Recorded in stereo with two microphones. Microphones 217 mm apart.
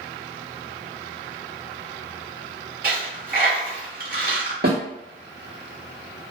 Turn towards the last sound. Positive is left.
turn(degrees=-50)  # may be behind; listen again after turning